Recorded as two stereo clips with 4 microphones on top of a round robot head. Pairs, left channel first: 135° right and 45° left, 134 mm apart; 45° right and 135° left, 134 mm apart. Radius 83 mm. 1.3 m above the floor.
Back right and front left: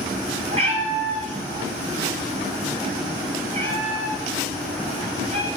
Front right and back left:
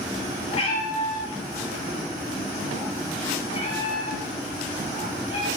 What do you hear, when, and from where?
0.5 s a cat meowing: straight ahead, 3 m